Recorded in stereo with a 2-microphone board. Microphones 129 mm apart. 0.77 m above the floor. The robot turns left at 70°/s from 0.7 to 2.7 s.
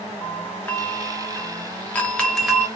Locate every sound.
0.2 s a doorbell: 15° left (ahead or behind), 1.0 m; by 2.7 s 5° right (ahead or behind), 1.0 m